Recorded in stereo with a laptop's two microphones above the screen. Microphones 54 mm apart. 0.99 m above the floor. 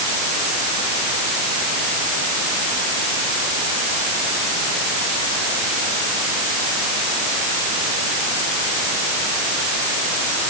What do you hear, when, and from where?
Only background noise.